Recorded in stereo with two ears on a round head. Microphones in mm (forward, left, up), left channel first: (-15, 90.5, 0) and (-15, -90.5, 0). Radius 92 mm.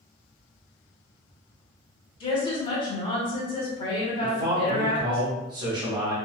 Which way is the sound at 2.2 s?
25° left (ahead or behind).